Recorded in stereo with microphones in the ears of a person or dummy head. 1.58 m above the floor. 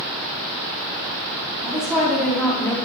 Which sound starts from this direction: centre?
A woman speaking, at 1.6 s.